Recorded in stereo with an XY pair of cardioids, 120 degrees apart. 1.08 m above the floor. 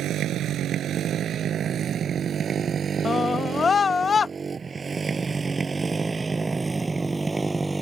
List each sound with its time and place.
0.0 s a motorcycle: 65° right; by 7.8 s 15° right
3.0 s a scream: 30° left